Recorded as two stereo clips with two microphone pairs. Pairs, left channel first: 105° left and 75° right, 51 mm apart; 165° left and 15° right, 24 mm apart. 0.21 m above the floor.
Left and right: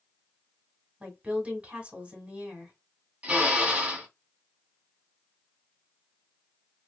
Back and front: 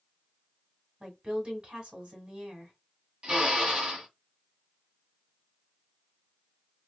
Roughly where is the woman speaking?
Ahead right.